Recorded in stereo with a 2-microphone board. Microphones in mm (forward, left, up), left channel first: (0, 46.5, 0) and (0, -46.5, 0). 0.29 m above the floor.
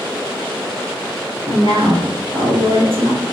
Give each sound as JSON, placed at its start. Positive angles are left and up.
{"t": 1.5, "sound": "a woman speaking", "side_deg": -75, "distance_m": 4.0}